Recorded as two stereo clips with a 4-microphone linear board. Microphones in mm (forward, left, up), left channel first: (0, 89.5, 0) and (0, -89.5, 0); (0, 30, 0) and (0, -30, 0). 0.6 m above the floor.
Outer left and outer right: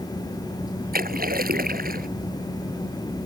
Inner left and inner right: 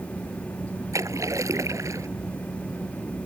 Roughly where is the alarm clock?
I don't hear an alarm clock.